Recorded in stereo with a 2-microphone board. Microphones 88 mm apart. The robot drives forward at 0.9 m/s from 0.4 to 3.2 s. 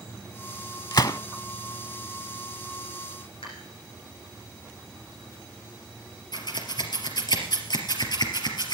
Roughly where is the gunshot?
Left.